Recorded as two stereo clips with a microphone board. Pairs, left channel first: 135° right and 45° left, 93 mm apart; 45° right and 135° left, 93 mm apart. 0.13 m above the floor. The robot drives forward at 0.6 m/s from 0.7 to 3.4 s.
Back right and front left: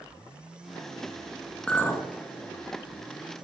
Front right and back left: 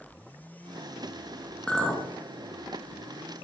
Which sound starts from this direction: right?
A clink, at 1.7 s.